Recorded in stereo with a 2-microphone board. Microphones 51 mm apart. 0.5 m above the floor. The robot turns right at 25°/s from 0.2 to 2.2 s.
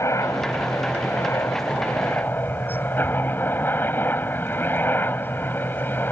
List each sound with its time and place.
0.0 s a helicopter: 85° left; by 6.1 s 135° left